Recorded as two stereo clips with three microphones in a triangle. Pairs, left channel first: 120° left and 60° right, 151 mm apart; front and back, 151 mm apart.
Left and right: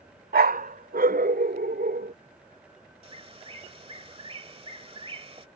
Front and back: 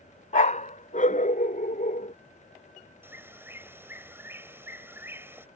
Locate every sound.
0.3 s a dog barking: 40° right; by 2.1 s 35° right
3.0 s a bird: 105° right